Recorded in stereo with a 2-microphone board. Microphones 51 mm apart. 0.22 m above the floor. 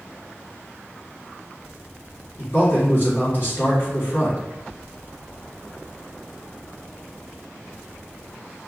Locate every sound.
2.4 s a man speaking: 45° left (ahead or behind), 1.6 m